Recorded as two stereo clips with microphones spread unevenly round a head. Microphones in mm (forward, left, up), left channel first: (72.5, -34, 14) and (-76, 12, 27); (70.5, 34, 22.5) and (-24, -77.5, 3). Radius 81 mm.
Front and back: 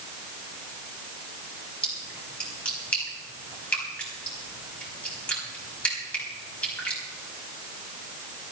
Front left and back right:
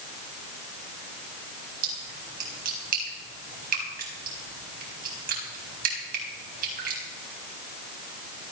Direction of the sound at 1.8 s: 100° right.